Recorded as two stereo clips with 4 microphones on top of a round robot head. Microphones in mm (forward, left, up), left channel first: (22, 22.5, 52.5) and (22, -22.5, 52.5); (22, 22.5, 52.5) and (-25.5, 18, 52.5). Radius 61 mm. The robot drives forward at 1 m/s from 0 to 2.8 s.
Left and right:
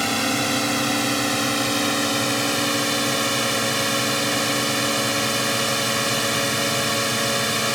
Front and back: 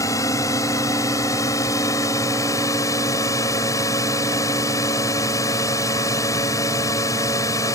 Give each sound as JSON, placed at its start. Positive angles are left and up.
{"t": 0.0, "sound": "a drone", "azimuth_deg": 0}